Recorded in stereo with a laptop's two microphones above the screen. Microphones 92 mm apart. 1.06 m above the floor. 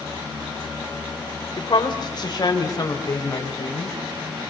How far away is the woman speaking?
About 4.5 m.